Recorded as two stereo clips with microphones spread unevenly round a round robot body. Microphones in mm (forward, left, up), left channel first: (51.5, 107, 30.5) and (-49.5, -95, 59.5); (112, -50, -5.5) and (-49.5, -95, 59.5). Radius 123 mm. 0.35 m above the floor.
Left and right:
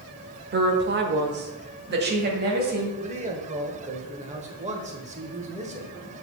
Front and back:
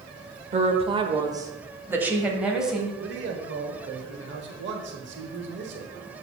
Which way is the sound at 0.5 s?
110° right.